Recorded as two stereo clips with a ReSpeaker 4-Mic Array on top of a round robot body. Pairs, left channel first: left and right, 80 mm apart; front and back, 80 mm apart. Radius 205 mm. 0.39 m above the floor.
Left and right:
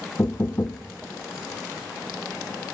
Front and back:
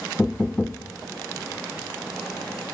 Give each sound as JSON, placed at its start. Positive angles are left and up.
{"t": 0.2, "sound": "knocking", "azimuth_deg": 70, "distance_m": 1.0}